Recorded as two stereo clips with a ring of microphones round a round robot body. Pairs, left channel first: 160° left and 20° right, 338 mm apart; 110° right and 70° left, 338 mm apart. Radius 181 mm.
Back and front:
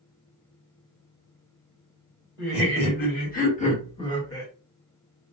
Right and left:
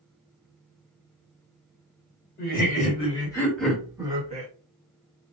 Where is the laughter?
160° right, 1.7 m; by 4.5 s 85° left, 1.3 m.